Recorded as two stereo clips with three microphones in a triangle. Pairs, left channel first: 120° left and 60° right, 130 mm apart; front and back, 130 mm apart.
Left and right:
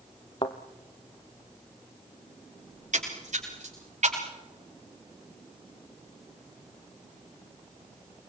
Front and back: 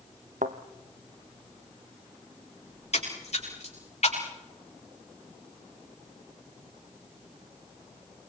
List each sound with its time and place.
0.4 s a thud: 170° left, 1.4 m
2.7 s a splash: 35° right, 6.5 m